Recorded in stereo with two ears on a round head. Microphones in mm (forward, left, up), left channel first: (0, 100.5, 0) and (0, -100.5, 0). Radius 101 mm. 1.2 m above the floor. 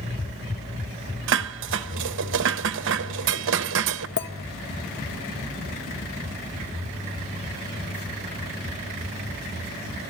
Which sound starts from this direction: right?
Dishes clattering, at 1.3 s.